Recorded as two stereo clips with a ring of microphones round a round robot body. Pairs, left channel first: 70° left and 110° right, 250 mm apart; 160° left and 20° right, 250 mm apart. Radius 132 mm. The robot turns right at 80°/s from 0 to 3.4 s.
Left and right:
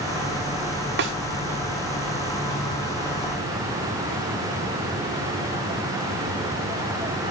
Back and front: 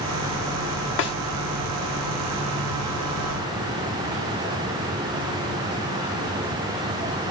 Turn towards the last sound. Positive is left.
turn(degrees=30)